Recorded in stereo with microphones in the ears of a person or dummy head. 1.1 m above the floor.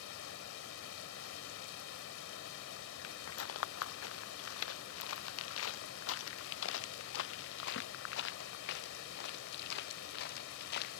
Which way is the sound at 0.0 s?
75° left (ahead or behind).